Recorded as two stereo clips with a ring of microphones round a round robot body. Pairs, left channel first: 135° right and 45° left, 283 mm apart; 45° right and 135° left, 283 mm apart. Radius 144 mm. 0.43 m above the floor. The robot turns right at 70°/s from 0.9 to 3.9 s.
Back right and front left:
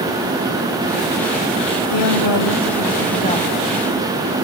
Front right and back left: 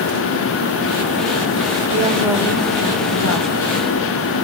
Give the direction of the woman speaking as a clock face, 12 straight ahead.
6 o'clock.